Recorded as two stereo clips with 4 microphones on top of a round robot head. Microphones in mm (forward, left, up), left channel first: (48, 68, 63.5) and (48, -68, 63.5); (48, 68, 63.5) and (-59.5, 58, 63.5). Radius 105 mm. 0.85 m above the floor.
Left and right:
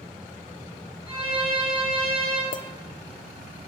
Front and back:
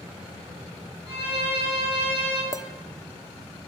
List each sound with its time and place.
1.1 s a violin: 35° left, 6 m
2.5 s a clink: 70° left, 0.5 m